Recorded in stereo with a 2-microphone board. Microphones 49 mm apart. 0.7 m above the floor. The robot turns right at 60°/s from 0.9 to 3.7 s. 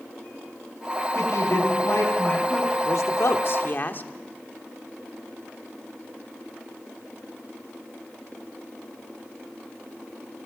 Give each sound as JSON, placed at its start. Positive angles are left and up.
{"t": 1.1, "sound": "a woman speaking", "azimuth_deg": 70, "distance_m": 8.0}
{"t": 2.9, "sound": "a man speaking", "azimuth_deg": 80, "distance_m": 1.4}